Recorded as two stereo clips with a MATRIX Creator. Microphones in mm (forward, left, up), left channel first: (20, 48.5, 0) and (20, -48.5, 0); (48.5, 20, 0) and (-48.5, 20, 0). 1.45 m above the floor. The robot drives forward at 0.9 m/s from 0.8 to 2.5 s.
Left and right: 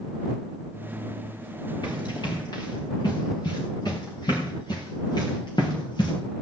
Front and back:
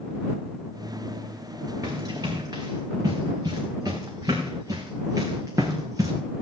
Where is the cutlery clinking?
I don't hear cutlery clinking.